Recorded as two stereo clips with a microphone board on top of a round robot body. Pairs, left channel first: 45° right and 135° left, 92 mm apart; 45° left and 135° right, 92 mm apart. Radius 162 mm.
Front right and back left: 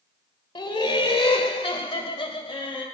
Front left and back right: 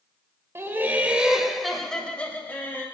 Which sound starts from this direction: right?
Laughter, at 0.6 s.